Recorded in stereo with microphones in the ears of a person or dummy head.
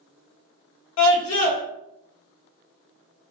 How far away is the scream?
About 1.4 m.